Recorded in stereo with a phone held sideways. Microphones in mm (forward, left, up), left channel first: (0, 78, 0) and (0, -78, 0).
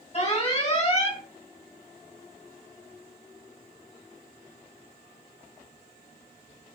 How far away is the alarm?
About 2 m.